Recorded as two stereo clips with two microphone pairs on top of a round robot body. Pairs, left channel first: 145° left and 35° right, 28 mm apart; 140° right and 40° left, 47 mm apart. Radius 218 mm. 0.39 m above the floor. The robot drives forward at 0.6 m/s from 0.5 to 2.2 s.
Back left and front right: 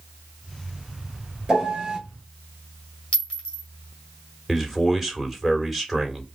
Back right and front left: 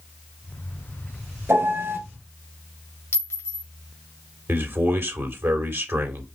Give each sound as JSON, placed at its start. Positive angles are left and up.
{"t": 1.5, "sound": "a piano", "azimuth_deg": 30, "distance_m": 2.0}
{"t": 3.1, "sound": "a clink", "azimuth_deg": -175, "distance_m": 1.9}
{"t": 4.5, "sound": "a man speaking", "azimuth_deg": 50, "distance_m": 2.0}